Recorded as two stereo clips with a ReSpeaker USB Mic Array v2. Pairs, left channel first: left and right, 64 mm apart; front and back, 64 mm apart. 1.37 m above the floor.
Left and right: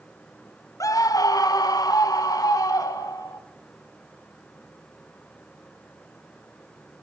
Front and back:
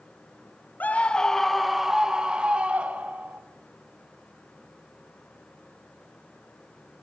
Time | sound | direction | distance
0.8 | a scream | 65° left | 0.7 m